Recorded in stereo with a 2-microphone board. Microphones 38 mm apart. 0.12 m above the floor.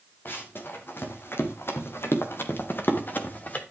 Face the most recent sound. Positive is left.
turn(degrees=45)  # may be behind; listen again after turning